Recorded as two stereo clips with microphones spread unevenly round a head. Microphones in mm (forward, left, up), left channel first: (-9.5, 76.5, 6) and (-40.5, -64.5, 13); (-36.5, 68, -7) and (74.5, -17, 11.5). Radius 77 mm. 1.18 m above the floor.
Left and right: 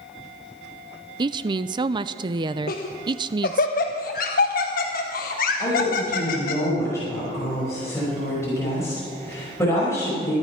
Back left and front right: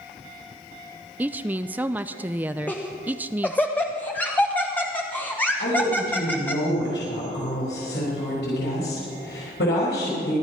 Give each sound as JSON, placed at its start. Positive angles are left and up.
{"t": 1.2, "sound": "a woman speaking", "azimuth_deg": -120, "distance_m": 0.5}
{"t": 2.7, "sound": "laughter", "azimuth_deg": 70, "distance_m": 1.1}
{"t": 5.6, "sound": "a woman speaking", "azimuth_deg": 150, "distance_m": 5.5}